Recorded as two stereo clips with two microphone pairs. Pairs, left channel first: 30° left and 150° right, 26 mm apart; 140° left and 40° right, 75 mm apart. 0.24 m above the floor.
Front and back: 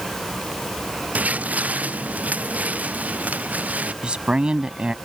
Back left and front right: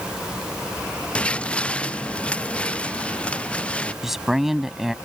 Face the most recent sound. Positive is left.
turn(degrees=-125)